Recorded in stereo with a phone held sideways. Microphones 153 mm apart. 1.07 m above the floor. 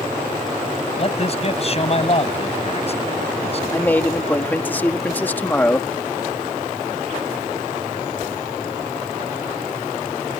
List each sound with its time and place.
1.0 s a man speaking: 40° left (ahead or behind)
3.7 s a man speaking: 10° left (ahead or behind)